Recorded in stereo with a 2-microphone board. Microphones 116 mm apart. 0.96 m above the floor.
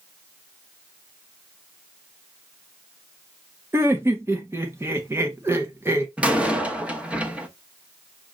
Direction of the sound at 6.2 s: 10° right (ahead or behind).